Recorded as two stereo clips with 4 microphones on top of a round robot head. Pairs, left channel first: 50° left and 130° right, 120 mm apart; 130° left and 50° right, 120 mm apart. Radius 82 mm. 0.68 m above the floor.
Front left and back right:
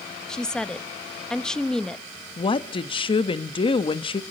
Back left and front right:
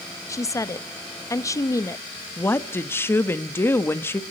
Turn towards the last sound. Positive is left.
turn(degrees=65)